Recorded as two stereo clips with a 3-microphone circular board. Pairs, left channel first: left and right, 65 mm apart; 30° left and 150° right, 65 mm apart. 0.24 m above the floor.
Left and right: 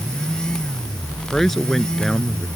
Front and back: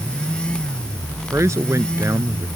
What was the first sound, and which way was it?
A man speaking, 175° left.